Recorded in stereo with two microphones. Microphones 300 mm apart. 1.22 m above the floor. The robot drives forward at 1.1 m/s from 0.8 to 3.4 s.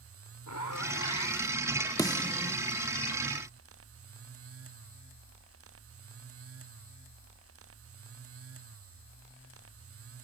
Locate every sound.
0.5 s a zipper: 70° left (ahead or behind); by 1.7 s 60° left (ahead or behind)
2.0 s a snare drum: 10° left (ahead or behind); by 2.6 s 20° left (ahead or behind)